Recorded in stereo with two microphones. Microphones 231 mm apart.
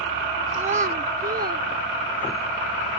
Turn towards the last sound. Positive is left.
turn(degrees=-40)  # may be behind; listen again after turning